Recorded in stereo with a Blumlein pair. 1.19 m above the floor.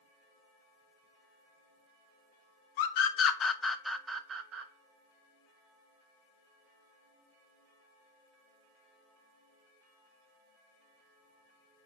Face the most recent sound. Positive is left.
turn(degrees=-35)